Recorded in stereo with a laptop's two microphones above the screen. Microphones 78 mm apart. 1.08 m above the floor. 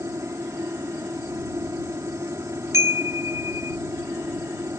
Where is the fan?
40° right (ahead or behind).